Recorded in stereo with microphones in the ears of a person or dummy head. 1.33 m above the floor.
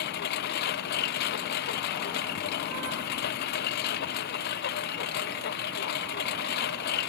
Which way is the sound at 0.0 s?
60° left (ahead or behind).